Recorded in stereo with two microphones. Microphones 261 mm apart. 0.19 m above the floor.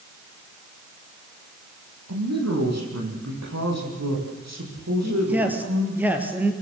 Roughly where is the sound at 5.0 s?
Centre.